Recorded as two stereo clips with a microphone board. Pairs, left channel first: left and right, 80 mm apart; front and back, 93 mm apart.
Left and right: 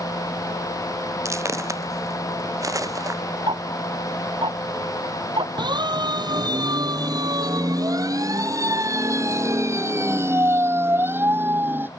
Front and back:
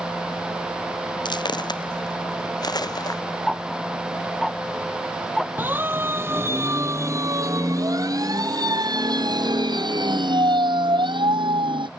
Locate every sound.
1.2 s footsteps: 35° right; by 3.2 s 45° right
3.5 s ticking: 90° right
5.6 s a siren: 110° right; by 11.9 s 155° right